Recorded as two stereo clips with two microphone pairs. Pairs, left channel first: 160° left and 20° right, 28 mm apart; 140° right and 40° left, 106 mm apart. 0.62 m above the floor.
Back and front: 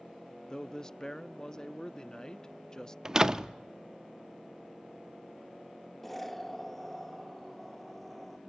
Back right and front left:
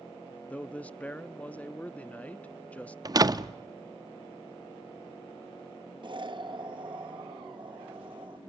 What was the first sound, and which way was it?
A man speaking, 160° left.